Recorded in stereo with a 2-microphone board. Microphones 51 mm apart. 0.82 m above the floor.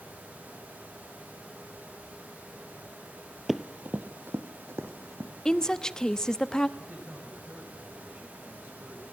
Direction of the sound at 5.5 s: 15° left (ahead or behind).